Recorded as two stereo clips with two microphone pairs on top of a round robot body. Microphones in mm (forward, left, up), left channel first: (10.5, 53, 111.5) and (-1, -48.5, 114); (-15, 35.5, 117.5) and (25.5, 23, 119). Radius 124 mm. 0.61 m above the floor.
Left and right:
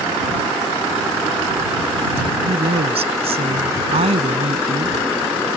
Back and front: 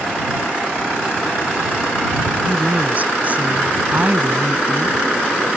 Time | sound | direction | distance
2.5 | a woman speaking | 70° right | ?